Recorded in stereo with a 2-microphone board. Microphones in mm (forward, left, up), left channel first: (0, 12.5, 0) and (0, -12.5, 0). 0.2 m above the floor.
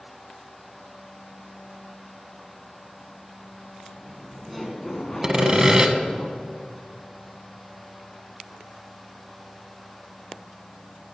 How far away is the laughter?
About 2.5 m.